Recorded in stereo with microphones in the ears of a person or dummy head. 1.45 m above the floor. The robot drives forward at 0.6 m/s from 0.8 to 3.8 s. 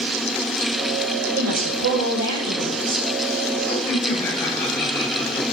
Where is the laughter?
15° left (ahead or behind), 6.5 m.